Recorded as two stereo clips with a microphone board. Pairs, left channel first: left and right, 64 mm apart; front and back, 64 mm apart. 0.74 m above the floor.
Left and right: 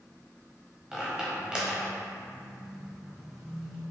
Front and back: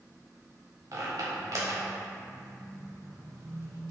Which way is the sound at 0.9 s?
165° right.